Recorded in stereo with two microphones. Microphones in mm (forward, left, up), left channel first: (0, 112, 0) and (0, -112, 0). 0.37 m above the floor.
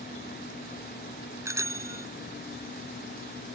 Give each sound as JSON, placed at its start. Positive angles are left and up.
{"t": 1.4, "sound": "a bicycle bell", "side_deg": -15}